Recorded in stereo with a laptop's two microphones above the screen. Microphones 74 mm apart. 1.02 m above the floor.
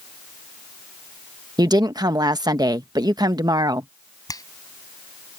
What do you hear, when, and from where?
1.6 s a woman speaking: 65° right (ahead or behind)
4.3 s a finger snap: 55° left (ahead or behind)